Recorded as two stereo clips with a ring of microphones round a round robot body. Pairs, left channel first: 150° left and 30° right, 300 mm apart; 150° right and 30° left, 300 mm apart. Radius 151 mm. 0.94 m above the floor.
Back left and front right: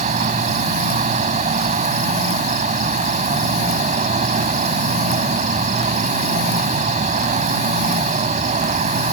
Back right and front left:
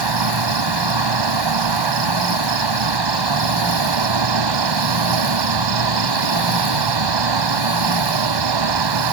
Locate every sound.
0.0 s an insect: 40° left